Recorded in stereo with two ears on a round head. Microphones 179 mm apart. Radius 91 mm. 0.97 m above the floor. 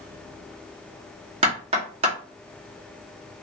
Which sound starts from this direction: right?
Knocking, at 1.4 s.